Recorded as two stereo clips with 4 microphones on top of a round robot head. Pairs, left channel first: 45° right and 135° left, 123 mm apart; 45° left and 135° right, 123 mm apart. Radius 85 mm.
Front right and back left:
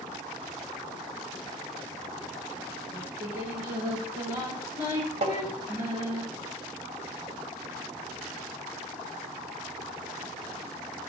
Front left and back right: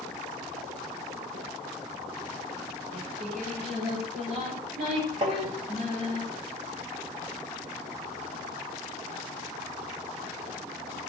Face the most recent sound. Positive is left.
turn(degrees=180)